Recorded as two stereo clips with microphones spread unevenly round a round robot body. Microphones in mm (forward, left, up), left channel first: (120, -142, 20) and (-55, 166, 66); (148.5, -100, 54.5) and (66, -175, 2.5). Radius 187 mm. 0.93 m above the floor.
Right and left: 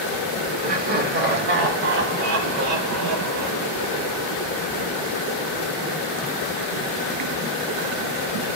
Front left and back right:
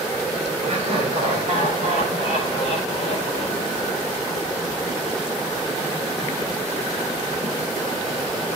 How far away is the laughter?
About 3 m.